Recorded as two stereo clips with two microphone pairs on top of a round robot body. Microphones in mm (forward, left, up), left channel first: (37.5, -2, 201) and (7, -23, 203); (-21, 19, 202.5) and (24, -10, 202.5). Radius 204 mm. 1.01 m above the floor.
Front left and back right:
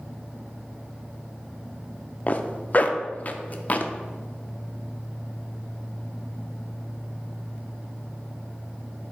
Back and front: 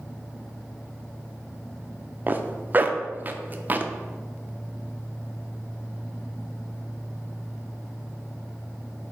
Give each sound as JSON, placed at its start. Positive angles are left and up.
{"t": 2.3, "sound": "a zipper", "azimuth_deg": 15, "distance_m": 0.6}